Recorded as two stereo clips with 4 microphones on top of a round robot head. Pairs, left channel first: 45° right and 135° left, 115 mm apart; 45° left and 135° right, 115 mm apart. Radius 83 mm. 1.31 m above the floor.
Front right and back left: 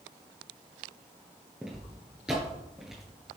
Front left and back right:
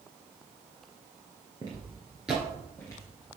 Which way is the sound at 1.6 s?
145° right.